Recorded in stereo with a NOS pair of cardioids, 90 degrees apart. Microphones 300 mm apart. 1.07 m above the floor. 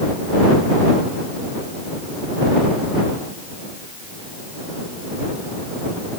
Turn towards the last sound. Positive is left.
No sound to turn to.